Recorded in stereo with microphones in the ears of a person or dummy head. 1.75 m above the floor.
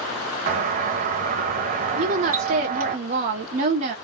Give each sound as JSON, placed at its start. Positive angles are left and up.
{"t": 0.5, "sound": "a doorbell", "side_deg": -45, "distance_m": 0.9}
{"t": 2.0, "sound": "a woman speaking", "side_deg": -35, "distance_m": 0.9}